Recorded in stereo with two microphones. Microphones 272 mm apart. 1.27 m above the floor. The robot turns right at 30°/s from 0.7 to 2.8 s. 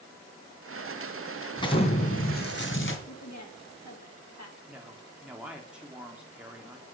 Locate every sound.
1.6 s an explosion: 15° left, 2 m; by 3.0 s 55° left, 2 m
3.1 s a woman speaking: 75° left (ahead or behind), 3.5 m
4.7 s a woman speaking: 5° right (ahead or behind), 3 m